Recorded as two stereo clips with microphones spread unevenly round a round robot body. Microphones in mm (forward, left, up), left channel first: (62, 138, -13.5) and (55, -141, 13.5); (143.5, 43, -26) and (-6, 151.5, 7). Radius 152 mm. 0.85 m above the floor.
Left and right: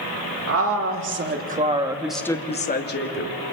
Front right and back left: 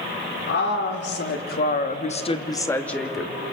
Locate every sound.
0.5 s a woman speaking: 55° right, 3 m; by 3.3 s 55° left, 2 m